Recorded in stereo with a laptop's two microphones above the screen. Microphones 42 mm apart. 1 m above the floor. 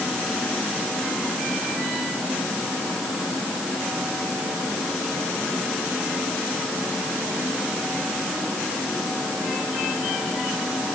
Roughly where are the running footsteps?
I don't hear running footsteps.